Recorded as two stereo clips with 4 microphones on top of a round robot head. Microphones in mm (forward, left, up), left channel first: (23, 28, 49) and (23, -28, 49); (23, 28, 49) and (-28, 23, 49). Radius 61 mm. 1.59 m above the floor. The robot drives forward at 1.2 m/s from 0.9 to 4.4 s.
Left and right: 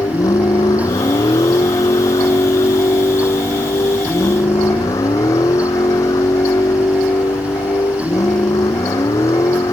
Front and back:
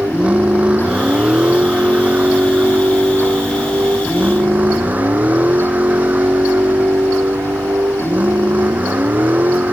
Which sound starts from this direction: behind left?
A vehicle, at 0.0 s.